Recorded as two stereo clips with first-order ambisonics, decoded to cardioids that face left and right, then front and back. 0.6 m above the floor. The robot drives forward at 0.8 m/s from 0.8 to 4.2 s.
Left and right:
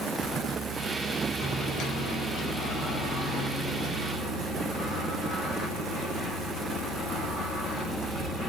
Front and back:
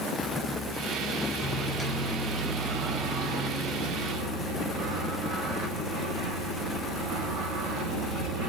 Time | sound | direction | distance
1.4 | a microwave | 55° left | 1.0 m